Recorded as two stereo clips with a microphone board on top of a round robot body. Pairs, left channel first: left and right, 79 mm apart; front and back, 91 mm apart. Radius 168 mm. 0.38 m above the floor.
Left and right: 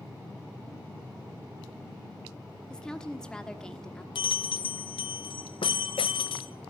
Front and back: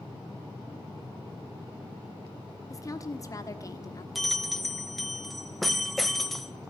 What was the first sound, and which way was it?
A woman speaking, 15° left.